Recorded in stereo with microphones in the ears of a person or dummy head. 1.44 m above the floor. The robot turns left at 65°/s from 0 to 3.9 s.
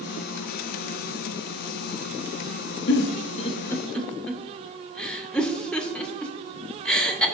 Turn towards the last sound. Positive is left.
turn(degrees=0)  # may be behind; listen again after turning